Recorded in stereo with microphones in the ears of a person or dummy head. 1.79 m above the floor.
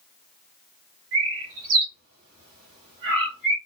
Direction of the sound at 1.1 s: 70° right (ahead or behind).